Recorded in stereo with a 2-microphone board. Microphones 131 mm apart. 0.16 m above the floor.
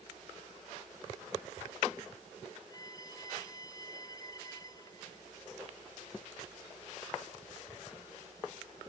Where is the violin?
30° left (ahead or behind).